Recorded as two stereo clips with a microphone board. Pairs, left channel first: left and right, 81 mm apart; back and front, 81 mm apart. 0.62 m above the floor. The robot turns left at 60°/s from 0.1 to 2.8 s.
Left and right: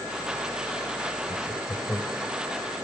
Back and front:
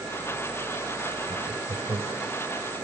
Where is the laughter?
65° left, 2.5 m; by 2.3 s 5° left, 2.5 m.